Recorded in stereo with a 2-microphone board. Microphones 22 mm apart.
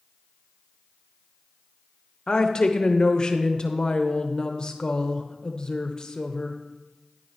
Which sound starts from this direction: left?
A woman speaking, at 2.3 s.